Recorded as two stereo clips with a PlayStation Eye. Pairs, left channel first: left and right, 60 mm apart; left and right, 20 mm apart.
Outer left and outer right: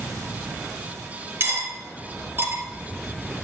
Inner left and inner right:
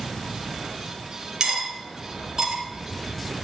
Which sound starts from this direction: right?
Cutlery clinking, at 1.4 s.